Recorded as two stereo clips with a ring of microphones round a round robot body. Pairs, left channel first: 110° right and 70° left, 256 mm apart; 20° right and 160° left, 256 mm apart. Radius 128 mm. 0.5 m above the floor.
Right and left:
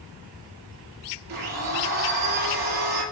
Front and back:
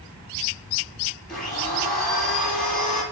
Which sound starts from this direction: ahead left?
A blender, at 1.3 s.